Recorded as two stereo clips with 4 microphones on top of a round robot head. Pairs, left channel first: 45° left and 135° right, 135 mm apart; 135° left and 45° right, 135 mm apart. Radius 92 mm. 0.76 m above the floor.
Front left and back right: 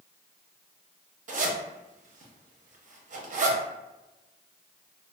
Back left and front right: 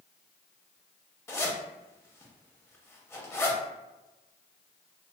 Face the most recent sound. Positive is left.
turn(degrees=-150)